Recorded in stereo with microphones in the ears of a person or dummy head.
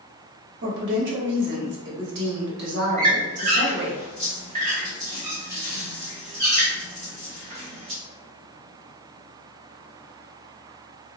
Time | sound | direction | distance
0.6 | a woman speaking | 50° right (ahead or behind) | 0.9 m
3.0 | a squeak | 40° right (ahead or behind) | 1.0 m